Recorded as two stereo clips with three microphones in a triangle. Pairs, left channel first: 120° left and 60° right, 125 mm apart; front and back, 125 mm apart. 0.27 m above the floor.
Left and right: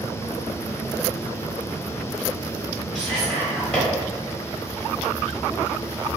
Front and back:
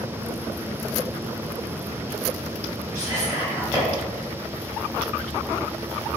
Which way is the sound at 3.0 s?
165° right.